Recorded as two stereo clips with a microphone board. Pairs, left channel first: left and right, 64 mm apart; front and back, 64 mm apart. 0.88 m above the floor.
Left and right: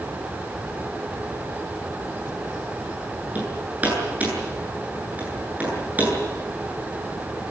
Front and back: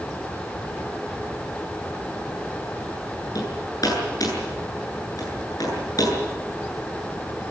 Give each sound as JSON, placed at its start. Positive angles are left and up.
{"t": 3.4, "sound": "hammering", "azimuth_deg": -25, "distance_m": 9.0}